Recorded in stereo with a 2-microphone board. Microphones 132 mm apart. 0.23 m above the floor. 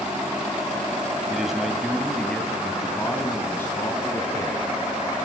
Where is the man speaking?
5° right (ahead or behind), 1.3 m; by 4.6 s 20° left (ahead or behind), 2.5 m.